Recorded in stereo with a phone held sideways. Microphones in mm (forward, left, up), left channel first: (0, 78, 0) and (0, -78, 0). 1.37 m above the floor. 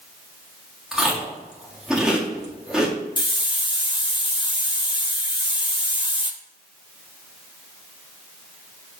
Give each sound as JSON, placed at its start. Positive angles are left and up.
{"t": 0.9, "sound": "chewing", "side_deg": -5, "distance_m": 1.4}
{"t": 3.2, "sound": "a hiss", "side_deg": 30, "distance_m": 0.6}